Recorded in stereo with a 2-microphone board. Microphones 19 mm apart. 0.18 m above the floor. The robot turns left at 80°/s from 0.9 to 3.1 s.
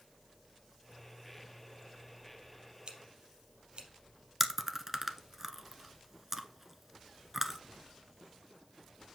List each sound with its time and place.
2.9 s scissors: 45° right (ahead or behind), 3 m; by 3.9 s 60° right (ahead or behind), 3 m
4.4 s chewing: 20° right (ahead or behind), 0.8 m